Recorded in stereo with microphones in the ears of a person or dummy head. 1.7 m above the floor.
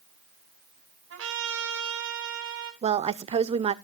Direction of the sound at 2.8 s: 35° right (ahead or behind).